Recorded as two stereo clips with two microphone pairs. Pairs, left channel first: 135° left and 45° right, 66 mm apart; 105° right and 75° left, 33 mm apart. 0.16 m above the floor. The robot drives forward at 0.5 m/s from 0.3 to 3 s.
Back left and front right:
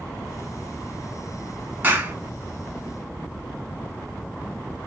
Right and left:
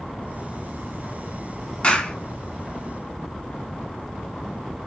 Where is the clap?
75° right, 1.1 m; by 2.1 s 90° right, 1.1 m.